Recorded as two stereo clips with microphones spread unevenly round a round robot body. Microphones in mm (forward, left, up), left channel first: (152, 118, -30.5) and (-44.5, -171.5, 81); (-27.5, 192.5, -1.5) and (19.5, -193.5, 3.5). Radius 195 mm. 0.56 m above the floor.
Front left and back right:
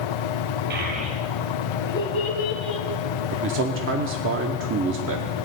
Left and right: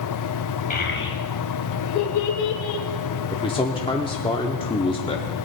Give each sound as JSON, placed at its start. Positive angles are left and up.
{"t": 0.7, "sound": "a child speaking", "azimuth_deg": 165, "distance_m": 2.0}
{"t": 3.3, "sound": "a man speaking", "azimuth_deg": 170, "distance_m": 0.8}